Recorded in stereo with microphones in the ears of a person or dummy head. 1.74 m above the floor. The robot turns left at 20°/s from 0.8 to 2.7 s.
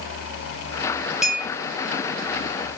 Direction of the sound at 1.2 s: 5° right (ahead or behind).